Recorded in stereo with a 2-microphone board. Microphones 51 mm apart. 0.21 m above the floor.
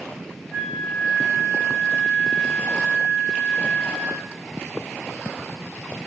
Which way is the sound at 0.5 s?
55° left (ahead or behind).